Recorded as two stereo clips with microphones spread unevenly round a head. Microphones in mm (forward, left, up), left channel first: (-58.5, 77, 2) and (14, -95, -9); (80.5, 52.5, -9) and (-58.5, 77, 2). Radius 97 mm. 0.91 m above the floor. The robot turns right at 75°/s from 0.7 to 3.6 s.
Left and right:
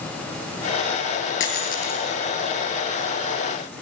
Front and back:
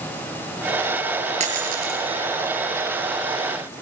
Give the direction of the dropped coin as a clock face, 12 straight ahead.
8 o'clock.